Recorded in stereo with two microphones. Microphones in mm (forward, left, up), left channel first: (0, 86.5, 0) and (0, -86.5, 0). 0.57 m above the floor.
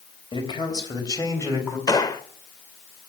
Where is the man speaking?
30° left (ahead or behind), 3.5 m; by 1.8 s 15° left (ahead or behind), 4 m.